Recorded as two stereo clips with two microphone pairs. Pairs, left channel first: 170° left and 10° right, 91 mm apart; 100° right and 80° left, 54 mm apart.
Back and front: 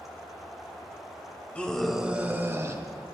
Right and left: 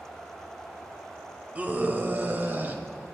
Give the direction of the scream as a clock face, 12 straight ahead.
8 o'clock.